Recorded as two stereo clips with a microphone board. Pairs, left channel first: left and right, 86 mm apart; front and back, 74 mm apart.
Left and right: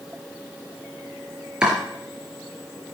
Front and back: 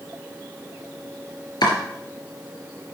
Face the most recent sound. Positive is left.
turn(degrees=-10)